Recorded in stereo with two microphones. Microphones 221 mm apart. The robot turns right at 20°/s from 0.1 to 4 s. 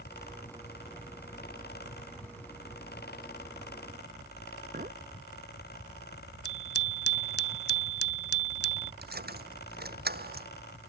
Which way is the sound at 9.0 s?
45° right (ahead or behind).